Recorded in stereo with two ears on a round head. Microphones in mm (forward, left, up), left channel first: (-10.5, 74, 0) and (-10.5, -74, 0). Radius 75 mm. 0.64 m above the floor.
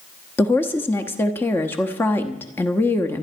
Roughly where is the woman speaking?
Centre.